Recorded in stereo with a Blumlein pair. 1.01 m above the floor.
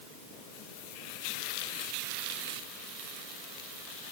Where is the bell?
No bell in this recording.